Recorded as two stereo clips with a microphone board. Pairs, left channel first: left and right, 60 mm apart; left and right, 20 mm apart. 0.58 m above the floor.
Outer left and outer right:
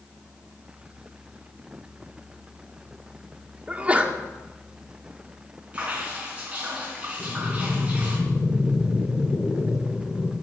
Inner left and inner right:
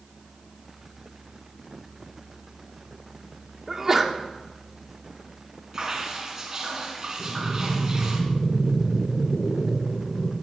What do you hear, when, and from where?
3.7 s a sneeze: 25° right (ahead or behind), 1.6 m
5.7 s dripping: 20° right (ahead or behind), 4 m
7.2 s breathing: 55° left (ahead or behind), 1.7 m